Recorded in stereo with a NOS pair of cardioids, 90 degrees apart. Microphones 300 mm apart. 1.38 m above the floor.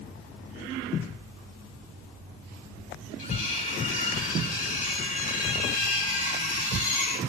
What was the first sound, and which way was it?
Cutlery clinking, 30° left.